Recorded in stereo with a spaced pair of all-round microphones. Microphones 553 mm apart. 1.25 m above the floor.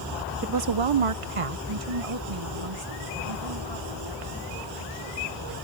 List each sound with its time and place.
0.4 s a woman speaking: 25° right (ahead or behind); by 5.6 s 75° right (ahead or behind)